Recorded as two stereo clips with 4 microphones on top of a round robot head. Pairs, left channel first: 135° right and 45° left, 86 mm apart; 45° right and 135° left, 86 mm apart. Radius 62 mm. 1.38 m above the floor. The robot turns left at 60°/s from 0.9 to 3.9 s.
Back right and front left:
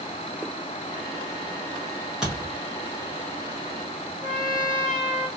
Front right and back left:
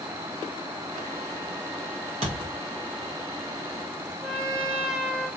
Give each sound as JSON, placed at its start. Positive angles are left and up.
{"t": 2.2, "sound": "a thud", "azimuth_deg": 125, "distance_m": 2.0}
{"t": 4.2, "sound": "a trumpet", "azimuth_deg": 50, "distance_m": 1.0}